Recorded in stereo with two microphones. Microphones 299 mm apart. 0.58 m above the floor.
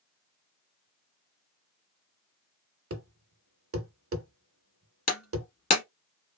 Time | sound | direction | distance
2.9 | a thud | 50° right (ahead or behind) | 0.6 m
5.1 | breaking glass | 60° left (ahead or behind) | 1.1 m